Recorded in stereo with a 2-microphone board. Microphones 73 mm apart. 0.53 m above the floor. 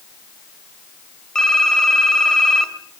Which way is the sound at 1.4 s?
10° left (ahead or behind).